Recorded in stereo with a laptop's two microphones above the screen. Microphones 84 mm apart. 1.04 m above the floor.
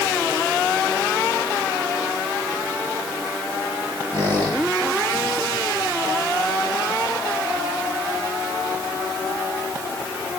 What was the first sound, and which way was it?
A squeak, 60° right (ahead or behind).